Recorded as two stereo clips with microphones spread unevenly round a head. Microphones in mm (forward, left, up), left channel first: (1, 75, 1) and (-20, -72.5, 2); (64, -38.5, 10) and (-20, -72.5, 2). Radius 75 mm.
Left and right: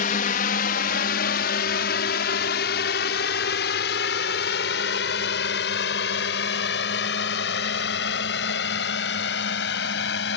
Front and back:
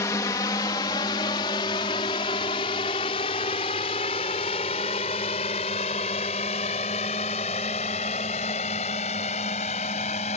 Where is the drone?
80° left; by 10.4 s 60° left.